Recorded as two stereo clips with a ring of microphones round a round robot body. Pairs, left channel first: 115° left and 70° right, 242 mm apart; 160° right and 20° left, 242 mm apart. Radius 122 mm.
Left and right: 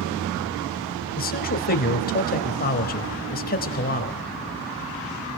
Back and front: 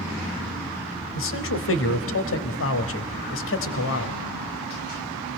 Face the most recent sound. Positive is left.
turn(degrees=165)